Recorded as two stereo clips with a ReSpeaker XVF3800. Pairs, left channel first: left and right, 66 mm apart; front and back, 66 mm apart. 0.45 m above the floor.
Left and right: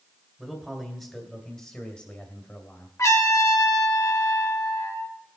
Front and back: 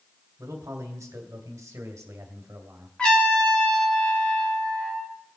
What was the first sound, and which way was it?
A man speaking, 175° right.